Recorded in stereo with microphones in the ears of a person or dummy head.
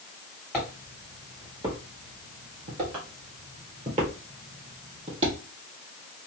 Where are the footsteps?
Centre (ahead or behind), 2.0 m; by 5.3 s 35° right (ahead or behind), 3 m.